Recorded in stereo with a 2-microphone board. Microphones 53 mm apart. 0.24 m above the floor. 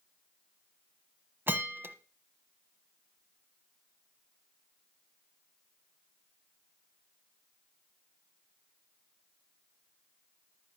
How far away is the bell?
About 1.0 m.